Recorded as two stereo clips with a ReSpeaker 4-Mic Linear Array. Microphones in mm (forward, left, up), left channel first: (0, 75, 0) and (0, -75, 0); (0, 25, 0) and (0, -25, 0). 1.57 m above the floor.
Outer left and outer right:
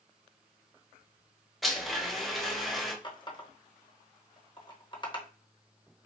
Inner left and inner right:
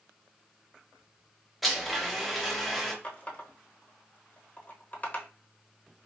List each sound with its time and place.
1.6 s a blender: centre (ahead or behind), 0.9 m
3.0 s a running tap: 30° left (ahead or behind), 0.9 m